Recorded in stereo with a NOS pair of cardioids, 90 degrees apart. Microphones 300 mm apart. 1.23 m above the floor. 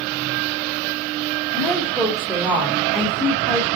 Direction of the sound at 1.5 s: Straight ahead.